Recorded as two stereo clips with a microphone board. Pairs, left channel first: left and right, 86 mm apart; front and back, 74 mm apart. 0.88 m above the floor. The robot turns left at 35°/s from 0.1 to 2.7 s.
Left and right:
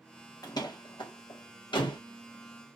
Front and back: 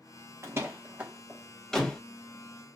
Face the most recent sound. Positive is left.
turn(degrees=50)